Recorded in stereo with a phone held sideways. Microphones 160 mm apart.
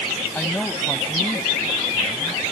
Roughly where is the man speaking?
Centre.